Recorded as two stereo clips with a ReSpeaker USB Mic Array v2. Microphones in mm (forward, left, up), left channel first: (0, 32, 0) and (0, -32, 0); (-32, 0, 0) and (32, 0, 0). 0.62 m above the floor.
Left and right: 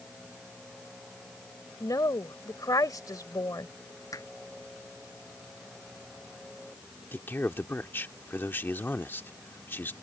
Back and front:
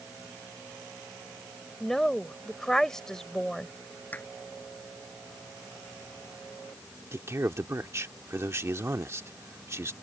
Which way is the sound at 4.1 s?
115° left.